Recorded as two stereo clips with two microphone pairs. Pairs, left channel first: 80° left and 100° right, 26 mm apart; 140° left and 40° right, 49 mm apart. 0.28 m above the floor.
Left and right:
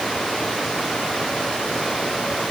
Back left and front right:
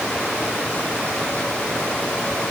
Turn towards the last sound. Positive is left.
No sound to turn to.